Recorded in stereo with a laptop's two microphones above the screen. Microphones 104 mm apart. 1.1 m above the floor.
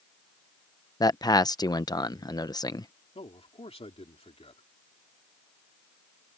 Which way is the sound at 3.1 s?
75° left (ahead or behind).